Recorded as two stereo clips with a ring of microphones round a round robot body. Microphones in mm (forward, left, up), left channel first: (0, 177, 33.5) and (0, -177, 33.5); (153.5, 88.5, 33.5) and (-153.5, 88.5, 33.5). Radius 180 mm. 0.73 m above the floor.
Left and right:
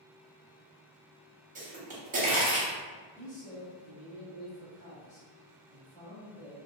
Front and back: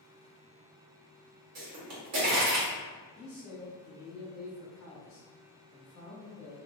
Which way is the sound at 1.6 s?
155° right.